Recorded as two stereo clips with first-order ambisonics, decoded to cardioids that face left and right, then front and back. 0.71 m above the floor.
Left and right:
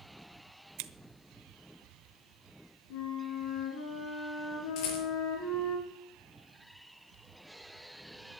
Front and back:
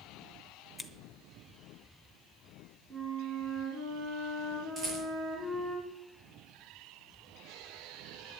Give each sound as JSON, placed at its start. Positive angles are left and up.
{"t": 0.8, "sound": "scissors", "azimuth_deg": -85, "distance_m": 1.0}
{"t": 2.9, "sound": "a flute", "azimuth_deg": 95, "distance_m": 5.0}
{"t": 4.8, "sound": "a rattle", "azimuth_deg": 110, "distance_m": 5.5}